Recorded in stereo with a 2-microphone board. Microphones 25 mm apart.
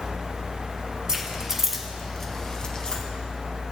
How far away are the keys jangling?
About 1.5 m.